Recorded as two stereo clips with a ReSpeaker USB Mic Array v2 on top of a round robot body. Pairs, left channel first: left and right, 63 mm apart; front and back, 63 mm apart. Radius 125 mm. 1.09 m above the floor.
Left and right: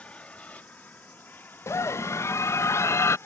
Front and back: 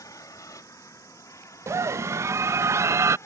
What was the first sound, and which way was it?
An aircraft, 20° left.